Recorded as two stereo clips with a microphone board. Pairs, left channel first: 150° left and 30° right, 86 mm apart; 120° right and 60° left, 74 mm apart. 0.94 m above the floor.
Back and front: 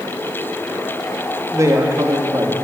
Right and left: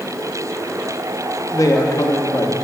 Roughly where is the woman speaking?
Right.